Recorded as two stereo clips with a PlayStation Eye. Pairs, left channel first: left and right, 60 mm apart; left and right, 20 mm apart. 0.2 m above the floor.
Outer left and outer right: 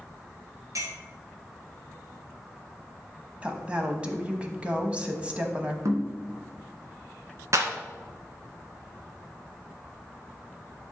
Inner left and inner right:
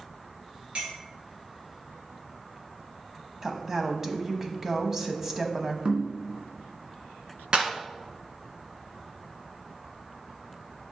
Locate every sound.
0.8 s a clink: 65° right (ahead or behind), 2.5 m
3.4 s a woman speaking: 20° right (ahead or behind), 1.0 m
5.8 s knocking: 55° right (ahead or behind), 1.6 m
7.5 s a clap: 55° right (ahead or behind), 1.7 m